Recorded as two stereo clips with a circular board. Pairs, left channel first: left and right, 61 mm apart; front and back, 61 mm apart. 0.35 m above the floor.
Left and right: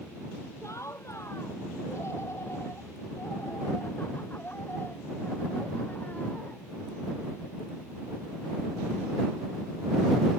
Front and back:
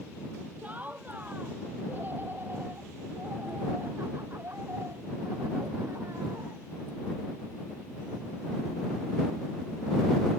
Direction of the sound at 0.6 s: 120° left.